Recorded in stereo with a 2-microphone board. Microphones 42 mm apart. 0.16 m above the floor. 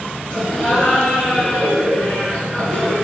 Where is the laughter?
15° left (ahead or behind), 1.1 m.